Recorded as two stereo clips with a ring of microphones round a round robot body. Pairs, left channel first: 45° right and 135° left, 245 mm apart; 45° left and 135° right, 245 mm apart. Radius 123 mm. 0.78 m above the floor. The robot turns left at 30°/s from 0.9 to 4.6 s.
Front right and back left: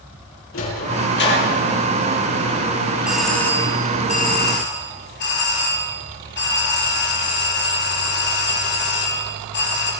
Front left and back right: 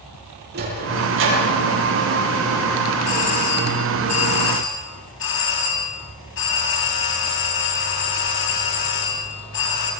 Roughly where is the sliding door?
Right.